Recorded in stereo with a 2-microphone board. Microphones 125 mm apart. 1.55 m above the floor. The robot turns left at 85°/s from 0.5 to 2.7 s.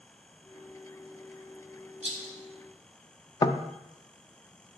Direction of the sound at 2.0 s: 60° right (ahead or behind).